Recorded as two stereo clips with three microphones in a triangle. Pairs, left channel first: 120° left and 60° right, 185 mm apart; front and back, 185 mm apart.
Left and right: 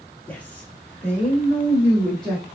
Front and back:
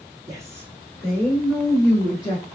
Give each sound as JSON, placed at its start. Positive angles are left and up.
{"t": 0.3, "sound": "a woman speaking", "azimuth_deg": 180, "distance_m": 1.4}